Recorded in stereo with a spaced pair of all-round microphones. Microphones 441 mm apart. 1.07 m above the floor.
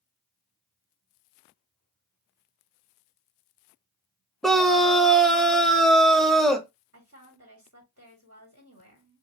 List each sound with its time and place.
4.4 s a scream: centre (ahead or behind), 0.9 m
6.9 s a woman speaking: 40° right (ahead or behind), 1.9 m